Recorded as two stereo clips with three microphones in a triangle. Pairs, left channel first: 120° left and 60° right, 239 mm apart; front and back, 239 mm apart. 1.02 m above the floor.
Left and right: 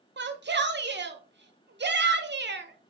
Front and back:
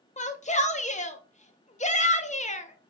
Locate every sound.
0.2 s a shout: 50° right, 0.5 m